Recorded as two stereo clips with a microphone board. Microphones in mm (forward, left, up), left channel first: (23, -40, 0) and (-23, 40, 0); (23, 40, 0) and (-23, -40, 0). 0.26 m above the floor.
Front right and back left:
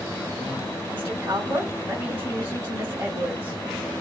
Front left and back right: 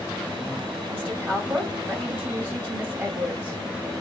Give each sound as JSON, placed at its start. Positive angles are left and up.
{"t": 0.9, "sound": "a woman speaking", "azimuth_deg": 170, "distance_m": 1.4}